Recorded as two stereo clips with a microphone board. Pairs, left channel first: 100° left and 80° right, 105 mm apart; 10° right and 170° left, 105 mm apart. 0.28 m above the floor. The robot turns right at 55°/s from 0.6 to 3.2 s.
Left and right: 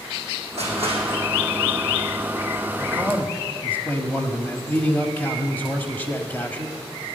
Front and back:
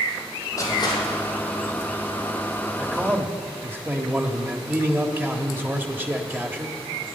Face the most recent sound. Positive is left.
turn(degrees=135)